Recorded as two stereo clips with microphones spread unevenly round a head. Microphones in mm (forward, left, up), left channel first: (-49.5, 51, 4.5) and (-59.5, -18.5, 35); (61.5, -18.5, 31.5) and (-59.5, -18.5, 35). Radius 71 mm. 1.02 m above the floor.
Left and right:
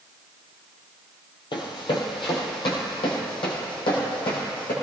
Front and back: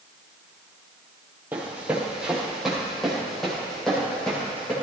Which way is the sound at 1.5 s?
105° left.